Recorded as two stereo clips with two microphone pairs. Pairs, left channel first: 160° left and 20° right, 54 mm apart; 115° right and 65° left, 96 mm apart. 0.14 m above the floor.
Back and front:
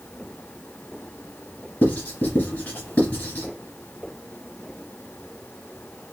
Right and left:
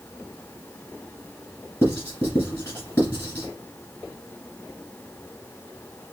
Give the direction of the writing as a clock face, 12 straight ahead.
6 o'clock.